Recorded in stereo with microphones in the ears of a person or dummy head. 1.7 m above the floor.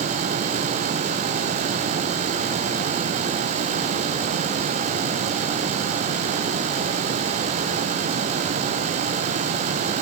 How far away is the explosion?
I don't hear an explosion.